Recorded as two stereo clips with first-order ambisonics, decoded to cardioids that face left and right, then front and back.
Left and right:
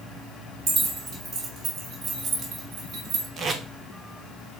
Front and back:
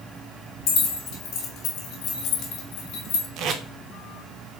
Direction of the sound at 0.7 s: 30° right.